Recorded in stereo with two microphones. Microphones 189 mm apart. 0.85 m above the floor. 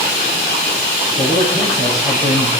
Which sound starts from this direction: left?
A man speaking, at 1.2 s.